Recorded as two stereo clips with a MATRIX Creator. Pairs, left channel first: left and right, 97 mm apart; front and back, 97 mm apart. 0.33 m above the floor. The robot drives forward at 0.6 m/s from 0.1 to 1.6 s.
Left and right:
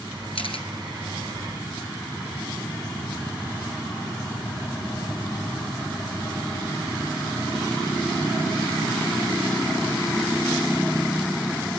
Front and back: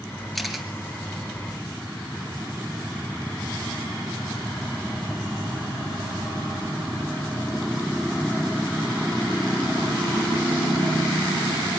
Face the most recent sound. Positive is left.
turn(degrees=105)